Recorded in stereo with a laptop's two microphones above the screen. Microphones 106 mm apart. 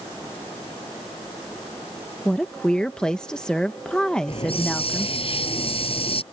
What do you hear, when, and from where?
2.2 s a woman speaking: 5° left (ahead or behind)
4.3 s a hiss: 60° left (ahead or behind)